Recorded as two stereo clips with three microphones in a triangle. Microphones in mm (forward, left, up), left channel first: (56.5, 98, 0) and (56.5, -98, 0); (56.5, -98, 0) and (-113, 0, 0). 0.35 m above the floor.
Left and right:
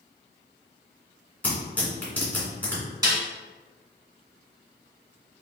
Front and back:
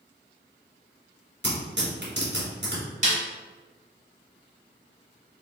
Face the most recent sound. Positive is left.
turn(degrees=-160)